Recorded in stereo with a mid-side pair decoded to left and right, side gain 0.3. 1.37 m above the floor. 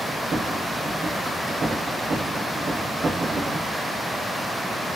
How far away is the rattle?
About 1.6 m.